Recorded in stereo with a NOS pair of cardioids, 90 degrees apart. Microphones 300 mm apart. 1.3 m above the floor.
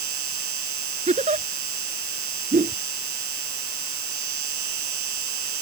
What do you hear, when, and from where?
0.0 s an insect: 70° right
1.1 s a giggle: 20° right
2.5 s a whoosh: 25° right